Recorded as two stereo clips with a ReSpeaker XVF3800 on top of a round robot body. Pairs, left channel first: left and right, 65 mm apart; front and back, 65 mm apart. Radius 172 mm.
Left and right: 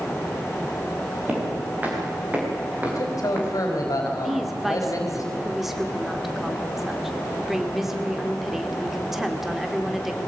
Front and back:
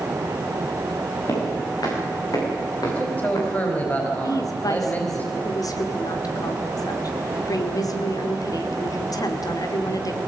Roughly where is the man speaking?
Ahead left.